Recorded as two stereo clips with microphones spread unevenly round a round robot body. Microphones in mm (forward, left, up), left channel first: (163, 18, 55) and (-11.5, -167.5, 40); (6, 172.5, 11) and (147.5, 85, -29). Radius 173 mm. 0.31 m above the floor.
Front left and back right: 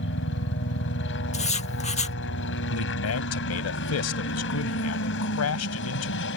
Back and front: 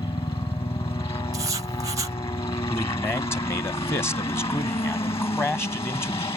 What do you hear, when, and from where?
0.0 s a helicopter: 90° left
1.3 s writing: 5° right
2.7 s a man speaking: 65° left